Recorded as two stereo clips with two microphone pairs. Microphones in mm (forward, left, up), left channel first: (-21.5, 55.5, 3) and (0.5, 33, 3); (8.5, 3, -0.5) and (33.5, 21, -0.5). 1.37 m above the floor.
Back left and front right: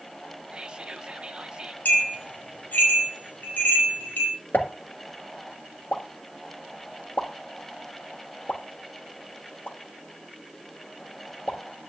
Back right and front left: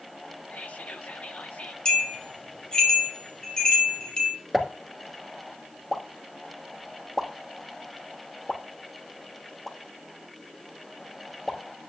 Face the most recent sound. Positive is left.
turn(degrees=130)